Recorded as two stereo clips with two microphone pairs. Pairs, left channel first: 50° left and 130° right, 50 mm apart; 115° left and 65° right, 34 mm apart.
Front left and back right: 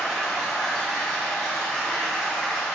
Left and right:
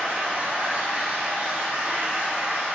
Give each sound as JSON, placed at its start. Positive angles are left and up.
{"t": 0.0, "sound": "running water", "azimuth_deg": -35, "distance_m": 3.0}